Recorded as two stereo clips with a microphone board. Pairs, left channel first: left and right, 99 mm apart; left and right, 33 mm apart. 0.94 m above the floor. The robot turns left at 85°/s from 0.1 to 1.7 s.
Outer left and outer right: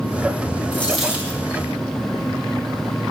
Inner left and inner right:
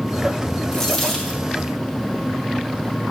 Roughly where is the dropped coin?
Ahead left.